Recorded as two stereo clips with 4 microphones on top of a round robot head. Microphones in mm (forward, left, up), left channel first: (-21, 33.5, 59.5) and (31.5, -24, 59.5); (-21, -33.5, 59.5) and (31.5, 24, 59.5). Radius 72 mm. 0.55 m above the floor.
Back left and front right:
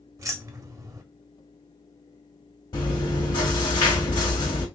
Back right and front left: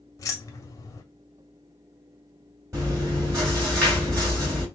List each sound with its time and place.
0.2 s keys jangling: 90° right, 1.2 m
2.7 s chewing: 105° left, 3 m